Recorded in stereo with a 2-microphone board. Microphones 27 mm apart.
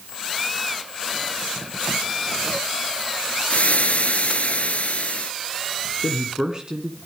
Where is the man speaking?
30° right (ahead or behind), 2 m.